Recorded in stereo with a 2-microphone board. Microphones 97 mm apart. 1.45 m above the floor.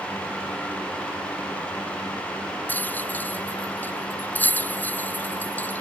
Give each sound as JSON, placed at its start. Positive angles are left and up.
{"t": 2.7, "sound": "a rattle", "side_deg": 20}